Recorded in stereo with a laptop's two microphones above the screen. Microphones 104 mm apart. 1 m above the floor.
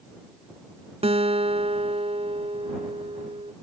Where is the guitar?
75° right (ahead or behind).